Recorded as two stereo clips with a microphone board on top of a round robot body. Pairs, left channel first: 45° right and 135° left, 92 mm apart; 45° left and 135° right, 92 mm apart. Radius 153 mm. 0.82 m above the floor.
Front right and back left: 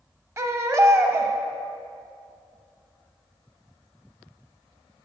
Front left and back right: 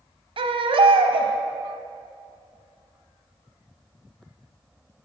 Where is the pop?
No pop in this recording.